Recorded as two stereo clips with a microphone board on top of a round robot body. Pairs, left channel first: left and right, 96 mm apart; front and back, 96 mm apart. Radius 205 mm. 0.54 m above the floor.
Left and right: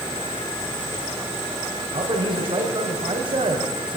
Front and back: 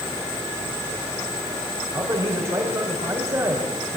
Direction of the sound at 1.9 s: 120° right.